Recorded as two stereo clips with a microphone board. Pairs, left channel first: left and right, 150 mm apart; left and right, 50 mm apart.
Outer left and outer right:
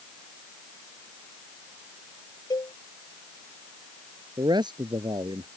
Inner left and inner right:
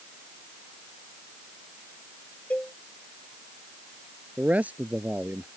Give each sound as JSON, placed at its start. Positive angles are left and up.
{"t": 2.5, "sound": "a cowbell", "side_deg": 30}
{"t": 4.4, "sound": "a man speaking", "side_deg": -35}